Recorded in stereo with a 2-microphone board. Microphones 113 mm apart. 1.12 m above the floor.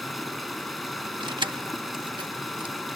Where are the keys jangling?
45° right (ahead or behind).